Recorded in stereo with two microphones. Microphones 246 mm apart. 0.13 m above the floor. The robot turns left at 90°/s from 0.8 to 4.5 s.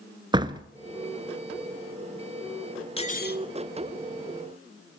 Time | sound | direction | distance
0.3 | a door slam | 20° right (ahead or behind) | 1.1 m
3.0 | cutlery clinking | 150° left | 1.3 m